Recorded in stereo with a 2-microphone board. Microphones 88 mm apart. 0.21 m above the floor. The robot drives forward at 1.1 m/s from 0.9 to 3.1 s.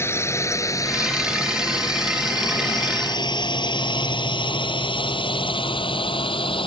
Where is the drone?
30° left (ahead or behind); by 6.7 s 75° left (ahead or behind).